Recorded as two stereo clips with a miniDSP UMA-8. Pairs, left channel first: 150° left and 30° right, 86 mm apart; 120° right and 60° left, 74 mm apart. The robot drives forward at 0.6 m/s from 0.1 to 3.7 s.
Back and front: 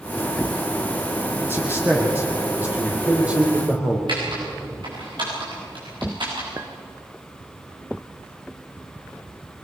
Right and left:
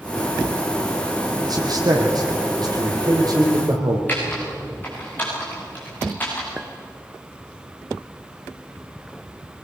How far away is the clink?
About 1.2 m.